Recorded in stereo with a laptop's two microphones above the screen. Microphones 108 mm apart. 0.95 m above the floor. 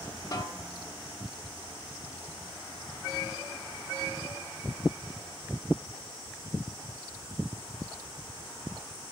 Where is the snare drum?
40° left (ahead or behind), 0.8 m.